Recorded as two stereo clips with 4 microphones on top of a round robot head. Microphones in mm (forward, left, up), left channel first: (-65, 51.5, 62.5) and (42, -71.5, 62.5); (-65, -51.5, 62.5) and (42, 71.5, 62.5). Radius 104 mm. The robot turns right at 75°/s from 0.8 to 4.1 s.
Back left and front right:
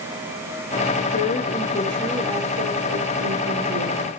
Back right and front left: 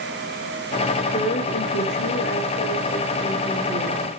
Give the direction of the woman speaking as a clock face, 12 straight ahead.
7 o'clock.